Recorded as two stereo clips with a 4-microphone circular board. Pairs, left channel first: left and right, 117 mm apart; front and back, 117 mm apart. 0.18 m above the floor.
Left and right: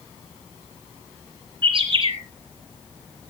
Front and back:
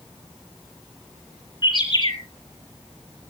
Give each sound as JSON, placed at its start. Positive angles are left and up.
{"t": 1.6, "sound": "a bird", "azimuth_deg": -50, "distance_m": 4.0}